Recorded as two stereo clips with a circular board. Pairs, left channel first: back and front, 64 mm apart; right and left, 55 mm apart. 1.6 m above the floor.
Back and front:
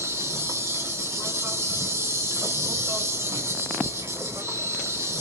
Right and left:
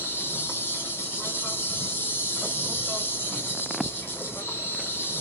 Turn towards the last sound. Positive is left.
turn(degrees=-45)